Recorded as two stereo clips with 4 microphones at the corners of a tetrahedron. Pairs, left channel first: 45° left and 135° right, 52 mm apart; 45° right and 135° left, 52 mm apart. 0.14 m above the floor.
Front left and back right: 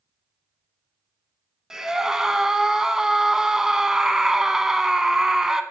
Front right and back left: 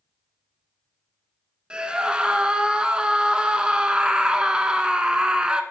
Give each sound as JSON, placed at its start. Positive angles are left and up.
{"t": 1.7, "sound": "a scream", "azimuth_deg": 165, "distance_m": 1.1}